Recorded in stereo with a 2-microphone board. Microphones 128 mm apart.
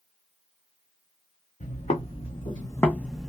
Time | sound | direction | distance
1.6 | footsteps | 65° left (ahead or behind) | 1.1 m